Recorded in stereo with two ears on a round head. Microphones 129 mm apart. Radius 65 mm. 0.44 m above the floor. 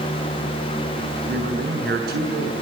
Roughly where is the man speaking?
Right.